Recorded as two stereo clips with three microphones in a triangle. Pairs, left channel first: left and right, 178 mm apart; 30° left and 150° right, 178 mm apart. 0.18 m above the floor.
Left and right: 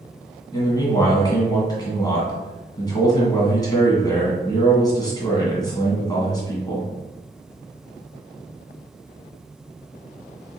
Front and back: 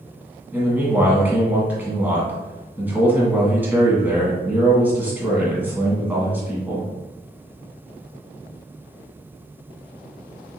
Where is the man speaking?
140° left, 1.5 m.